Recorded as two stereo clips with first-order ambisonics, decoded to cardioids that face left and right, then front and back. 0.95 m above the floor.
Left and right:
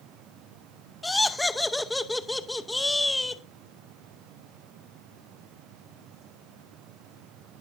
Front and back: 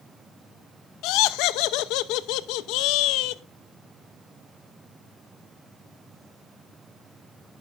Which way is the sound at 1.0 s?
5° left.